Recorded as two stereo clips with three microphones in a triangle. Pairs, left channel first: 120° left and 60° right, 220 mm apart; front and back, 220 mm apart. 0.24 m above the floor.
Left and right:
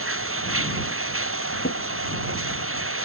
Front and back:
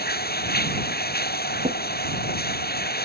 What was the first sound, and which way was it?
Running water, 45° right.